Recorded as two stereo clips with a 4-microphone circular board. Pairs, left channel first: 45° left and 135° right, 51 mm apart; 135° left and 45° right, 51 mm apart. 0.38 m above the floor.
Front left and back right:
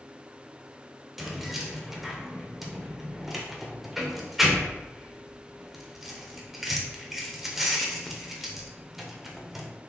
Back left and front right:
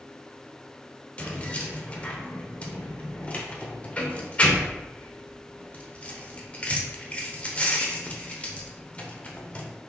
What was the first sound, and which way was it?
Keys jangling, 145° left.